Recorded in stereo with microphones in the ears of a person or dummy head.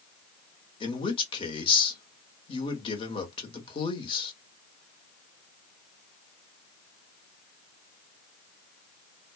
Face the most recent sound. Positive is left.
turn(degrees=30)  # may be behind; listen again after turning